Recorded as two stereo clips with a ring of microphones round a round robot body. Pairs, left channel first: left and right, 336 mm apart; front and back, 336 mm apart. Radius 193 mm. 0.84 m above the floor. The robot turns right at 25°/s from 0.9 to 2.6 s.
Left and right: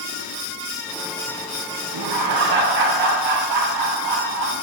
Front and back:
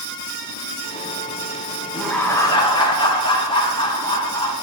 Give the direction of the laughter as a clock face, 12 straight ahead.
3 o'clock.